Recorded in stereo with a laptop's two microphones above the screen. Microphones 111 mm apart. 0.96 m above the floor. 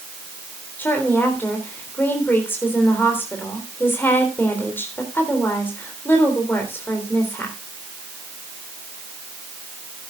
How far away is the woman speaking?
About 3.5 m.